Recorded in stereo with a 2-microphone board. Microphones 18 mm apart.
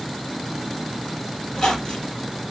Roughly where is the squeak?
Left.